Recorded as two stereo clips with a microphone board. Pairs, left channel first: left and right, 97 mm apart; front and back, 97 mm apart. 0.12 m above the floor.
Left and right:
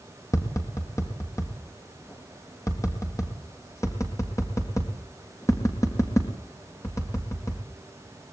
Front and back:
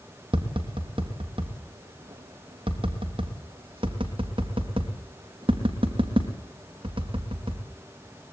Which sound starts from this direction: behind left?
Tapping, at 0.3 s.